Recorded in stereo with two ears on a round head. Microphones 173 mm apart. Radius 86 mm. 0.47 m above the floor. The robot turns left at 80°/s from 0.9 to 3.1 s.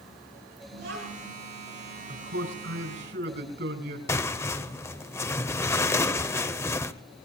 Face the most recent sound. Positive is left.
turn(degrees=15)  # may be behind; listen again after turning